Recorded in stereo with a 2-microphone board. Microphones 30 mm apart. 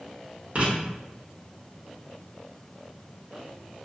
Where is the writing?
50° right (ahead or behind), 1.2 m.